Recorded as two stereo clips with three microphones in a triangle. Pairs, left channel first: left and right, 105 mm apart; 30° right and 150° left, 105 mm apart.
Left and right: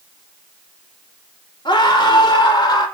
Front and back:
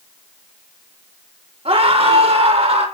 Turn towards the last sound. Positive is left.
turn(degrees=140)